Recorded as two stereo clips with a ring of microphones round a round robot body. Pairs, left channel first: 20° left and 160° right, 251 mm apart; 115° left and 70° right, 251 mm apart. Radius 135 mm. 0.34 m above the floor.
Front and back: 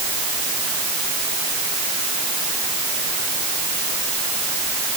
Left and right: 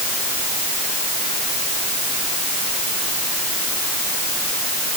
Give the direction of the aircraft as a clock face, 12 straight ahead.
No aircraft in this recording.